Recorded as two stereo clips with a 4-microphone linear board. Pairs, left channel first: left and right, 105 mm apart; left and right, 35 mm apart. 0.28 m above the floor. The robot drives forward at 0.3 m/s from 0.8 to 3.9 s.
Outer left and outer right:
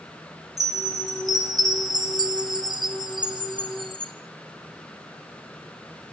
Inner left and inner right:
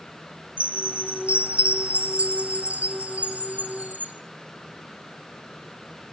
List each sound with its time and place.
0.6 s a chime: 35° right (ahead or behind), 2.5 m; by 4.1 s 50° right (ahead or behind), 1.8 m